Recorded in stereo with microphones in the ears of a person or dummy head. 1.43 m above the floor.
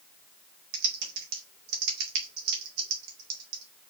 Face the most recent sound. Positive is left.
turn(degrees=-60)  # may be behind; listen again after turning